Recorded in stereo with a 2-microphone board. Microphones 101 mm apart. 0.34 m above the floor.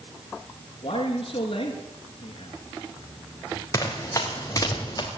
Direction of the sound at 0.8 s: 65° left (ahead or behind).